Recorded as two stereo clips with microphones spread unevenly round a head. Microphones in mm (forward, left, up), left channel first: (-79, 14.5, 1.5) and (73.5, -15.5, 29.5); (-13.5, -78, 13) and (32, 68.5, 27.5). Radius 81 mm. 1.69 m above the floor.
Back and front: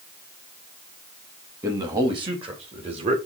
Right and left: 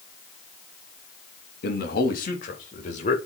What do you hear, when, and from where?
1.6 s a man speaking: 80° right, 3 m; by 3.2 s 60° right, 4 m